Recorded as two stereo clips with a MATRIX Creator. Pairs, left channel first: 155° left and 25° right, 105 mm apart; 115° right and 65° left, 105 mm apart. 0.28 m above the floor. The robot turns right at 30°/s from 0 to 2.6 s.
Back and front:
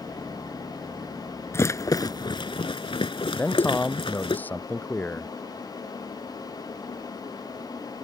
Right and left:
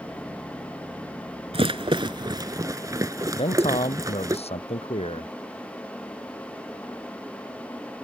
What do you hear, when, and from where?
1.5 s a rattle: 95° left; by 4.4 s 125° left
3.4 s a man speaking: 130° right